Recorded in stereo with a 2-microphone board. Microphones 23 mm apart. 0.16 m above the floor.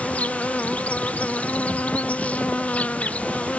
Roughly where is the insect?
Left.